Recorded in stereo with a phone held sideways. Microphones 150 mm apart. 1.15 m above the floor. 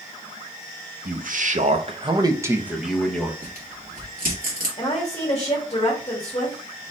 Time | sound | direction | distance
1.1 | a man speaking | 70° right (ahead or behind) | 0.9 m
3.4 | tearing paper | 70° right (ahead or behind) | 1.9 m
4.8 | a woman speaking | 35° left (ahead or behind) | 1.8 m